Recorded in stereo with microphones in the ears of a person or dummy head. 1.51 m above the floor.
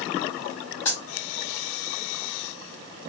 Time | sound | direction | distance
0.8 | a dropped coin | 15° left (ahead or behind) | 1.6 m